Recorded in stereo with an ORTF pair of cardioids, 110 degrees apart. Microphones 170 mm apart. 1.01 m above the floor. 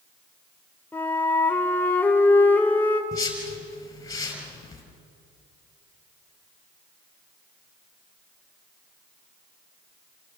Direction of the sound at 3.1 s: 20° left.